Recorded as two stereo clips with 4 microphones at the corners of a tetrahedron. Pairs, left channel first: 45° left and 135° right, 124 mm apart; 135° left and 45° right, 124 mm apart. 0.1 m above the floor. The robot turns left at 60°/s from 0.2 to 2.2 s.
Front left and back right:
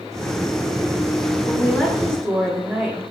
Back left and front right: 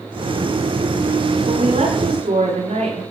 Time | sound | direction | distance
1.5 | a woman speaking | 25° right | 10 m